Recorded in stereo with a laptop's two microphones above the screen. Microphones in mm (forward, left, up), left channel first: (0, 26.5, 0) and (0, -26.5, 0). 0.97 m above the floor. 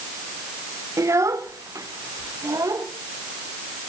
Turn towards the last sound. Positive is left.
turn(degrees=-85)